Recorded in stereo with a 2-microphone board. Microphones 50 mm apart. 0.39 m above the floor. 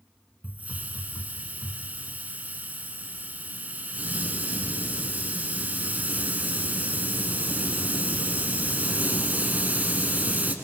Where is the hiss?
35° right (ahead or behind), 1.5 m.